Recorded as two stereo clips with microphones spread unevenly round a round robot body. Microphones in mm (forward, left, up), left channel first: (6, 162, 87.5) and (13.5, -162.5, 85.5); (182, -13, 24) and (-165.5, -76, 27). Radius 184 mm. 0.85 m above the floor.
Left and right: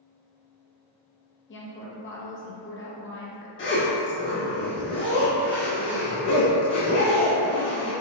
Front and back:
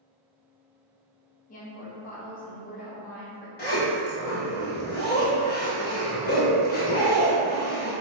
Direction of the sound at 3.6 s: 60° left.